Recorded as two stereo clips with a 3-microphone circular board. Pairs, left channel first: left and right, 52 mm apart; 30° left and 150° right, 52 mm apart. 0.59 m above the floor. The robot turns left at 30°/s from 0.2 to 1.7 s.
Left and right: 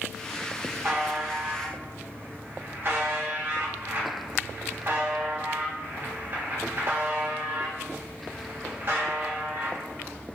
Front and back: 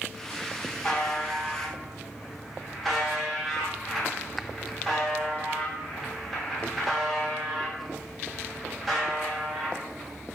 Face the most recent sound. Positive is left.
turn(degrees=-60)